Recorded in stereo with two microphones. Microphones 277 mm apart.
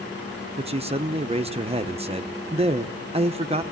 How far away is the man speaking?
About 0.8 m.